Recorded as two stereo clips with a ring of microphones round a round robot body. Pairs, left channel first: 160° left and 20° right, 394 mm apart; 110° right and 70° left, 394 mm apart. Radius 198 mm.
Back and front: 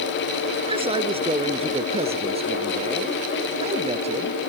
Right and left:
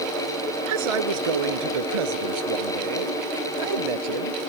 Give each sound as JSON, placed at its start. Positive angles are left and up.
{"t": 0.7, "sound": "a man speaking", "azimuth_deg": 55}